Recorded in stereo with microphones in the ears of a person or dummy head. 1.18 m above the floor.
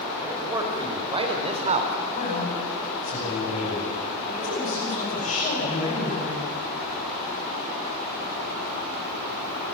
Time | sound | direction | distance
0.2 | a man speaking | 15° right (ahead or behind) | 4.5 m
2.1 | a man speaking | 40° left (ahead or behind) | 9.5 m